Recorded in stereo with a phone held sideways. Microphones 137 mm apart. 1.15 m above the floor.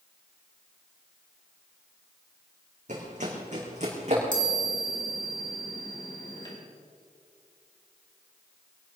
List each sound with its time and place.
2.9 s running footsteps: 60° right (ahead or behind), 4 m; by 4.2 s 55° right (ahead or behind), 5 m
4.3 s a chime: 35° left (ahead or behind), 4 m